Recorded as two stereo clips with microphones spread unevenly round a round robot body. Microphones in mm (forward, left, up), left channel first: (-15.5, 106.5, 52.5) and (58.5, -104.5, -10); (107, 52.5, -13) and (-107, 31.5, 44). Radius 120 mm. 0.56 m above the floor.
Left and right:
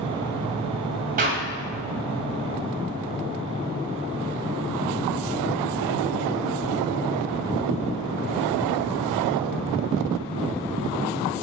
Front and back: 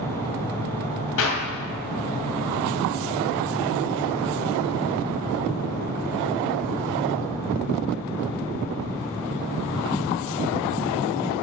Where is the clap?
20° right, 2 m.